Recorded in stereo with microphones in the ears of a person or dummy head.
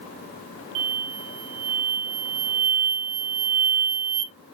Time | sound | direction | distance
0.8 | an explosion | 80° right | 0.6 m